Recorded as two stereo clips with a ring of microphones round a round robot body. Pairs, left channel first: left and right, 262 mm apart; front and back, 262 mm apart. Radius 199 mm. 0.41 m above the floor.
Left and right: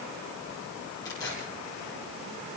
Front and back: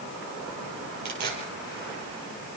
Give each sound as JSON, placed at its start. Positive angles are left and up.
{"t": 1.1, "sound": "tearing paper", "azimuth_deg": 170, "distance_m": 5.0}